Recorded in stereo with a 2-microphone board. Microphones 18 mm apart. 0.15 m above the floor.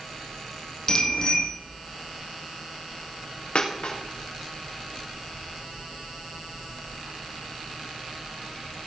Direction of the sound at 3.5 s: 65° left (ahead or behind).